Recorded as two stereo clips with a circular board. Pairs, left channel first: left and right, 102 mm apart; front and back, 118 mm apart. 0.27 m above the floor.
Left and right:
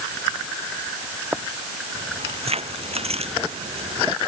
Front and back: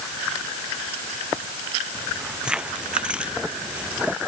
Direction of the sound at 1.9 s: 95° right.